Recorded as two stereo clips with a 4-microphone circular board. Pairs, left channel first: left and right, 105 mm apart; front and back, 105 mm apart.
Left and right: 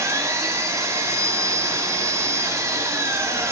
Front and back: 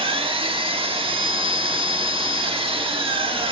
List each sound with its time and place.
0.0 s an engine running: 150° right, 1.9 m